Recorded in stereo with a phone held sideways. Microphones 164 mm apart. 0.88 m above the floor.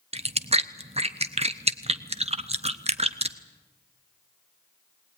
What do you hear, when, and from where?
0.1 s chewing: 40° right (ahead or behind), 0.8 m